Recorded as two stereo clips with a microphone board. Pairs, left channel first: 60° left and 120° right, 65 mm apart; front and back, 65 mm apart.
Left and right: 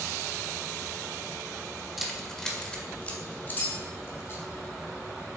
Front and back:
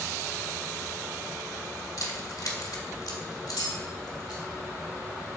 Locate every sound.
2.0 s keys jangling: 30° right, 1.4 m; by 4.4 s 10° left, 2.5 m